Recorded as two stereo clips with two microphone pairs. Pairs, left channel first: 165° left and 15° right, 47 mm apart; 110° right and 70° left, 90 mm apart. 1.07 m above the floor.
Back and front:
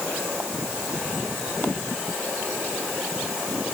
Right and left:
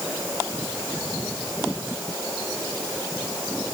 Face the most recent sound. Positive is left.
No sound to turn to.